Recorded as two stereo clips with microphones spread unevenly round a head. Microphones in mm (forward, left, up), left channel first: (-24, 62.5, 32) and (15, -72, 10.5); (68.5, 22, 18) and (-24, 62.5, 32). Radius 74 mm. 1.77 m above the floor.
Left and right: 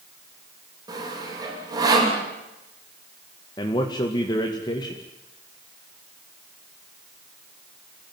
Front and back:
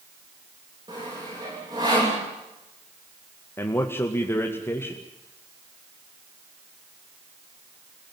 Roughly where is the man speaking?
Ahead left.